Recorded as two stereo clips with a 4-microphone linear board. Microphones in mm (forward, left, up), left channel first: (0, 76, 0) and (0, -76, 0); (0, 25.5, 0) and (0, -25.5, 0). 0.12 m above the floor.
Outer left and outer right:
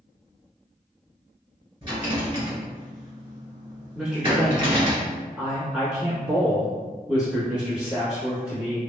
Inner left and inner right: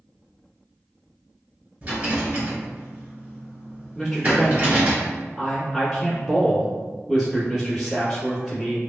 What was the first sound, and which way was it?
A rattle, 30° right (ahead or behind).